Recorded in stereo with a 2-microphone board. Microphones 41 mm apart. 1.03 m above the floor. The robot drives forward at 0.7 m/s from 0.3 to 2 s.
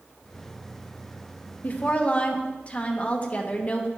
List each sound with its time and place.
1.6 s a woman speaking: 45° left (ahead or behind), 0.9 m; by 3.9 s 35° left (ahead or behind), 1.1 m